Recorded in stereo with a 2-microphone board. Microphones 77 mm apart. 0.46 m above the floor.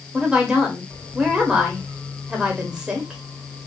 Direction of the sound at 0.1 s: 15° right (ahead or behind).